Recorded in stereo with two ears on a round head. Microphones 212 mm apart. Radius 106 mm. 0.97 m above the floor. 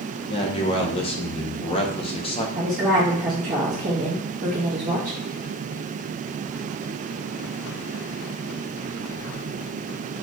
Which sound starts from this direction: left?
A man speaking, at 0.3 s.